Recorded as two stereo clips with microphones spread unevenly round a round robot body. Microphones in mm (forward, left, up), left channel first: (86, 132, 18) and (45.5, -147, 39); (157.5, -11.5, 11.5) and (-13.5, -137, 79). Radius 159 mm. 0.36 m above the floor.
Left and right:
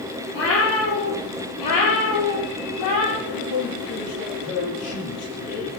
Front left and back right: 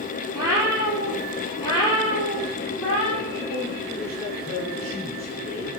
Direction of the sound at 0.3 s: 140° left.